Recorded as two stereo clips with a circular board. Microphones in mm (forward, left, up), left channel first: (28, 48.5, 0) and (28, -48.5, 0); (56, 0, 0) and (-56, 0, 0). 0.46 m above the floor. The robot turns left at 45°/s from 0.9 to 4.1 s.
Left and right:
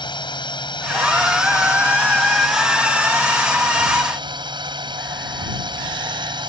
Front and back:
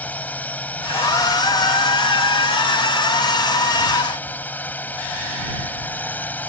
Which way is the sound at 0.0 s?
70° left.